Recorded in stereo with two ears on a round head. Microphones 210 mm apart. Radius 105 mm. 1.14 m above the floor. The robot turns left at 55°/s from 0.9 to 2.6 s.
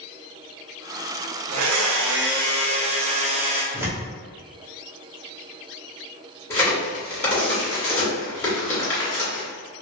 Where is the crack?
10° left (ahead or behind), 1.7 m.